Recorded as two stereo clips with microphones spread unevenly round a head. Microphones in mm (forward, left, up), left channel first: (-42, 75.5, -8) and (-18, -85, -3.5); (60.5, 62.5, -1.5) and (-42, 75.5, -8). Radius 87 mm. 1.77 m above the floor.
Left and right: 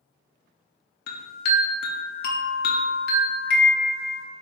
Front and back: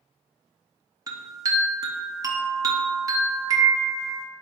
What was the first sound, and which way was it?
A chime, 115° left.